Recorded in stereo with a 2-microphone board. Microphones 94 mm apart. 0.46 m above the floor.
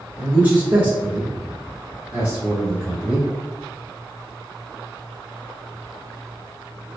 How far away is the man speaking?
About 1.3 m.